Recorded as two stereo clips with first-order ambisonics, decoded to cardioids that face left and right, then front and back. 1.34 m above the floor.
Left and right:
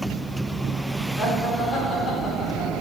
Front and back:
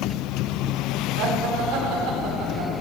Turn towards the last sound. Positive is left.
turn(degrees=155)